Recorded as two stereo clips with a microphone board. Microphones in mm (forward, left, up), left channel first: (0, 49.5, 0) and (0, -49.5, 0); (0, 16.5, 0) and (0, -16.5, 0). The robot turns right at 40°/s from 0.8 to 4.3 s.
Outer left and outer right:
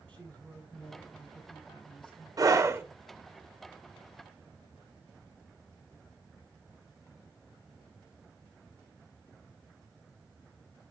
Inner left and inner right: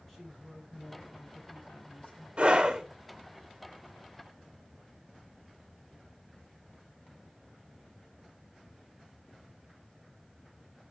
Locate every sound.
0.1 s a woman speaking: 15° left, 5 m; by 2.3 s 70° left, 5 m
2.4 s a scream: 40° right (ahead or behind), 1.5 m; by 2.8 s 25° right (ahead or behind), 1.5 m